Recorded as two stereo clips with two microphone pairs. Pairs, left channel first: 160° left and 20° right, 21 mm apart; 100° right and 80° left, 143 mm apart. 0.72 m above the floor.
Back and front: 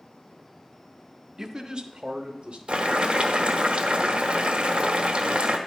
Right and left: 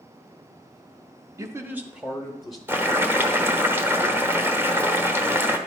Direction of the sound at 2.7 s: 5° left.